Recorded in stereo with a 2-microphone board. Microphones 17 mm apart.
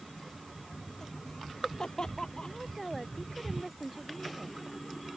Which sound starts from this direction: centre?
A woman speaking, at 2.4 s.